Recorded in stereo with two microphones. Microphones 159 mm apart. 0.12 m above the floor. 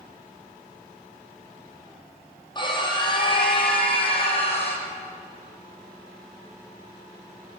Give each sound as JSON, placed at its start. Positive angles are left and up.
{"t": 2.5, "sound": "a scream", "side_deg": 30, "distance_m": 5.5}